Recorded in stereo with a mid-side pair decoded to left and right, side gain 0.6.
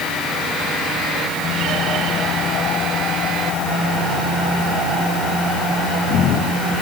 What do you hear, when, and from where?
Only background noise.